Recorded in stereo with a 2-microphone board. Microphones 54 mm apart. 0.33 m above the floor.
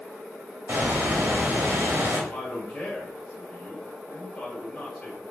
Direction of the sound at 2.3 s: 15° left (ahead or behind).